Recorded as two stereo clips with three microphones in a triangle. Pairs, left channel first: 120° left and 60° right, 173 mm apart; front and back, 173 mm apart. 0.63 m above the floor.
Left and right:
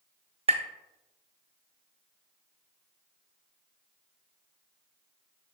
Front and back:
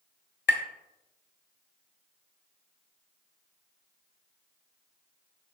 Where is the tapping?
5° right, 0.7 m.